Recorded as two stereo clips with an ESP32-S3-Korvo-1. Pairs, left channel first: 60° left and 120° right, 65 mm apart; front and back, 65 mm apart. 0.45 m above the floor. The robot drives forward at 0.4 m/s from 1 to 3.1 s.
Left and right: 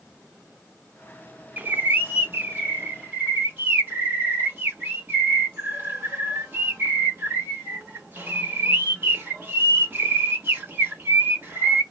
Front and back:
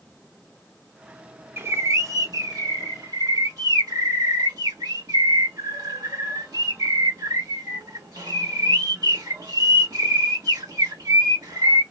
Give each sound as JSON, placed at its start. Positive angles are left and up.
{"t": 1.6, "sound": "a bird", "azimuth_deg": -165, "distance_m": 0.5}